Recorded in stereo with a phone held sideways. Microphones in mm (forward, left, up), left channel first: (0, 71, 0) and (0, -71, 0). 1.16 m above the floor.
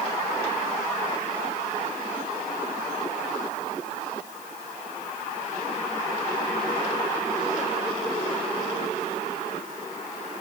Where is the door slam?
No door slam in this recording.